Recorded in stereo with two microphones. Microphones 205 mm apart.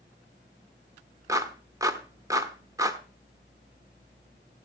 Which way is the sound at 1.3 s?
15° right (ahead or behind).